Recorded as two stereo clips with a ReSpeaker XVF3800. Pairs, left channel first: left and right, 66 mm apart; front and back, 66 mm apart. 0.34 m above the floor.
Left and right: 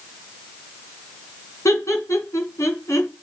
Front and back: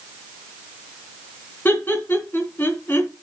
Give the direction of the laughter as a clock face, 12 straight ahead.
10 o'clock.